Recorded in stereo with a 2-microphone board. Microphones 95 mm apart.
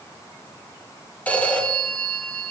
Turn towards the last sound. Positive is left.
turn(degrees=15)  # may be behind; listen again after turning